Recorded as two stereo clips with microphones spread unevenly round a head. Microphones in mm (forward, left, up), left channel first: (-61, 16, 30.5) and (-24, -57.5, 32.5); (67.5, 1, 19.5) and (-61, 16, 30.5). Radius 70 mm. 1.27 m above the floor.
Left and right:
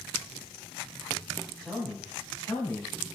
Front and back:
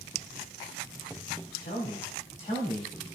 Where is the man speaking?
25° left, 2.5 m; by 3.2 s 55° left, 2.0 m.